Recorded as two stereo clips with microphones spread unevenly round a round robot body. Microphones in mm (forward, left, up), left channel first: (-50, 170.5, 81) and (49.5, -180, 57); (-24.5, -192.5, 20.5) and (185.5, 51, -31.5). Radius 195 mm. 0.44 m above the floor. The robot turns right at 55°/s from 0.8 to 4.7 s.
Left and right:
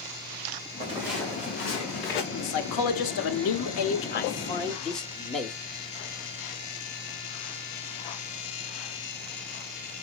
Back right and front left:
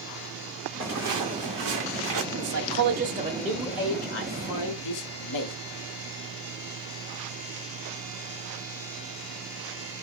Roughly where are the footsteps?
Ahead.